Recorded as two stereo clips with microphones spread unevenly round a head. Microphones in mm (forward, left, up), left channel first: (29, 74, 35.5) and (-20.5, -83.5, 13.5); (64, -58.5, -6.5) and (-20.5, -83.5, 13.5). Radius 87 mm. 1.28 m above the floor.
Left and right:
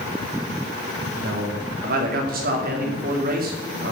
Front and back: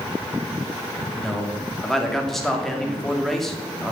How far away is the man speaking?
About 2.5 m.